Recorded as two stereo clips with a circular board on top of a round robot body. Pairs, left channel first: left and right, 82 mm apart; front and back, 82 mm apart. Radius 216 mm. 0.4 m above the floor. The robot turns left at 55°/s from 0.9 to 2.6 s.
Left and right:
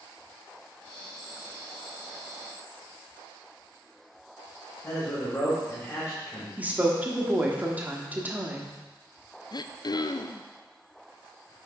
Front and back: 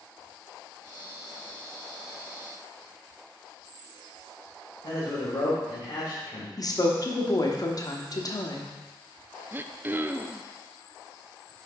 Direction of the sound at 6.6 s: 25° right.